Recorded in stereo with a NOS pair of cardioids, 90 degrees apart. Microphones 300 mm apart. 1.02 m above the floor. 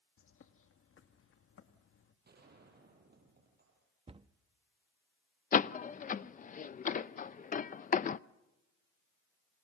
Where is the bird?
45° left, 1.6 m.